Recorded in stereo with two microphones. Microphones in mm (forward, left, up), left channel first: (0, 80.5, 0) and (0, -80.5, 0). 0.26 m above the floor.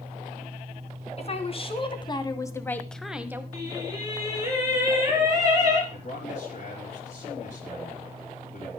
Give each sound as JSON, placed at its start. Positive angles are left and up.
{"t": 1.2, "sound": "a woman speaking", "side_deg": 45, "distance_m": 2.5}
{"t": 3.5, "sound": "singing", "side_deg": -25, "distance_m": 5.0}
{"t": 5.9, "sound": "a man speaking", "side_deg": 55, "distance_m": 4.5}